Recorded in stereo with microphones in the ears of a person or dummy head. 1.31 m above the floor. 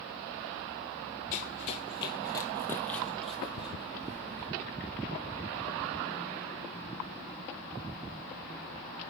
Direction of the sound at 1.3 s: 40° left (ahead or behind).